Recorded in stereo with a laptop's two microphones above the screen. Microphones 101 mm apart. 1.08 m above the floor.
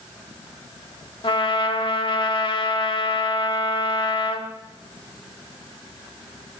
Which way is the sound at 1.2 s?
55° left (ahead or behind).